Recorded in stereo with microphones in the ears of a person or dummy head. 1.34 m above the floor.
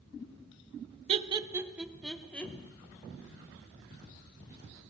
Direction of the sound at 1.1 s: 35° right (ahead or behind).